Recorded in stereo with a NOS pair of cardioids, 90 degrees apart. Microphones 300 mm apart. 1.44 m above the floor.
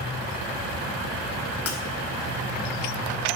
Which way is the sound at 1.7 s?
55° left.